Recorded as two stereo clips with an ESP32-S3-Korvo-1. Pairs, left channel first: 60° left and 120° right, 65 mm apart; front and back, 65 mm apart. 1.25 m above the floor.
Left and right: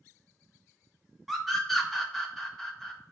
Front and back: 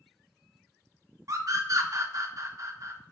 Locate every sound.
1.3 s a scream: 150° left, 0.8 m